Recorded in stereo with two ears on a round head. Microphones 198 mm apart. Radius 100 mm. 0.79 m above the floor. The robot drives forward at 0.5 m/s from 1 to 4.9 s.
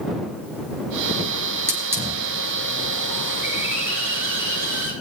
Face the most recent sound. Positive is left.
turn(degrees=-10)  # may be behind; listen again after turning